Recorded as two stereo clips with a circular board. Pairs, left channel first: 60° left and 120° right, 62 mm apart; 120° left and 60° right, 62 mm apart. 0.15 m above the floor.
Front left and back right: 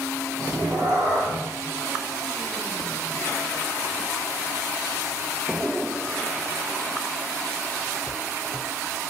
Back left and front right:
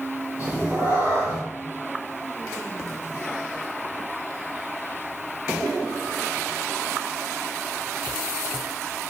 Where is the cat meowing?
120° right, 3 m.